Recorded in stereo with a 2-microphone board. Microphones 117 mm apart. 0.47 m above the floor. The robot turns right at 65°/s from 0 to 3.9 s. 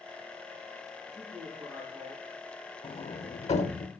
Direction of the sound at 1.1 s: 155° left.